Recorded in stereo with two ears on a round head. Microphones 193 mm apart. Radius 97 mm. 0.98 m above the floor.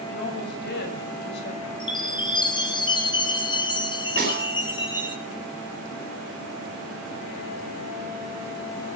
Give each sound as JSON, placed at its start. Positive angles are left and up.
{"t": 0.1, "sound": "a woman speaking", "side_deg": 50, "distance_m": 6.5}
{"t": 1.8, "sound": "a chime", "side_deg": 20, "distance_m": 4.0}
{"t": 4.2, "sound": "a snare drum", "side_deg": -40, "distance_m": 9.5}